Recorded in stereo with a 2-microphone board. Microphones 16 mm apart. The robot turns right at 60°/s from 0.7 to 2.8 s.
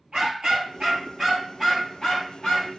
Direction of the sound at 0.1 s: 65° right.